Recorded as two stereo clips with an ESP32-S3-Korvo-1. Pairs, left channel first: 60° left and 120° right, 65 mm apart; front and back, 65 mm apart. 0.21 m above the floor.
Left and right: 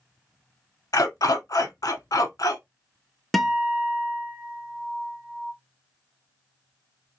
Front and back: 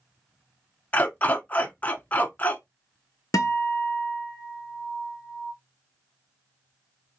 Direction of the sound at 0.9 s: 60° left.